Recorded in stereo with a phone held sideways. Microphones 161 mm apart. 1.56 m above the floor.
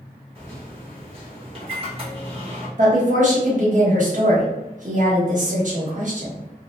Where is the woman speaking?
50° right (ahead or behind), 1.2 m.